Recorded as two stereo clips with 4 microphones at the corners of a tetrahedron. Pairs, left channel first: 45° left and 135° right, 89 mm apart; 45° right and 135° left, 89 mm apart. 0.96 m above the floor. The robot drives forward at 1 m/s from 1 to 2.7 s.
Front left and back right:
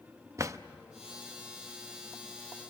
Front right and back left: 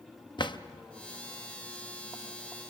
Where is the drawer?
80° right, 0.6 m.